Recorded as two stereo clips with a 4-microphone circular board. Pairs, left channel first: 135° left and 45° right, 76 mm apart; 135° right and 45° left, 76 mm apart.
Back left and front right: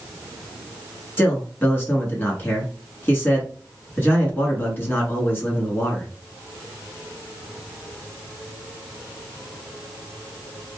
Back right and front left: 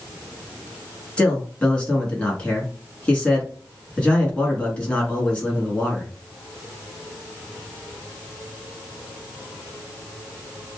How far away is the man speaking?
About 1.2 m.